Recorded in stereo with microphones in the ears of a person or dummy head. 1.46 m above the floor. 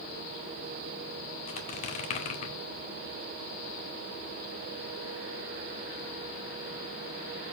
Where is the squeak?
40° left (ahead or behind), 2 m.